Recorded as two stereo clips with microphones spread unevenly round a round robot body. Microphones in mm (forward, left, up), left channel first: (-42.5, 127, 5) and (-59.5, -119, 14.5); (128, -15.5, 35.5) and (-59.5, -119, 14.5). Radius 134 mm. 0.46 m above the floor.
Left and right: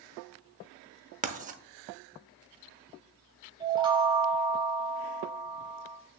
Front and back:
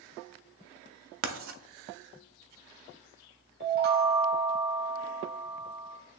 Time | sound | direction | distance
1.2 | writing | 155° right | 0.8 m
3.6 | a chime | 165° right | 1.2 m